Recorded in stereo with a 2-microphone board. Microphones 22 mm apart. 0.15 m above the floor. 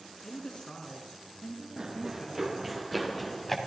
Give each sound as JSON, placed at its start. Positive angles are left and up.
{"t": 0.2, "sound": "a woman speaking", "side_deg": 40, "distance_m": 1.9}
{"t": 1.8, "sound": "running footsteps", "side_deg": -30, "distance_m": 1.8}